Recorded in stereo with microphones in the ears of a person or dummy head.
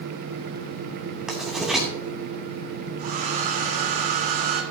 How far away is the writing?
About 3 m.